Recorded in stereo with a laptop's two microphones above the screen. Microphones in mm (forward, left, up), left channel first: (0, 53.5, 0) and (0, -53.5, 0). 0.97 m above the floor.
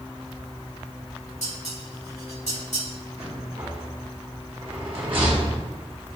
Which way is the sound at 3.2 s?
55° right (ahead or behind).